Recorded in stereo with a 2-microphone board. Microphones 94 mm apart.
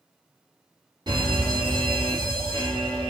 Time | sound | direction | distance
1.1 | a fire alarm | 50° right (ahead or behind) | 3 m